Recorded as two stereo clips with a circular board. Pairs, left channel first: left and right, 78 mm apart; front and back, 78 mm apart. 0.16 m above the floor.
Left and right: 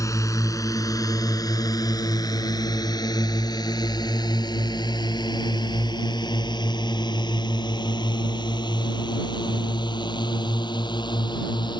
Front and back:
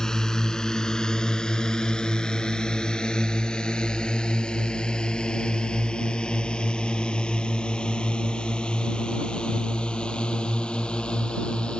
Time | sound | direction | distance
0.0 | a drone | 80° left | ?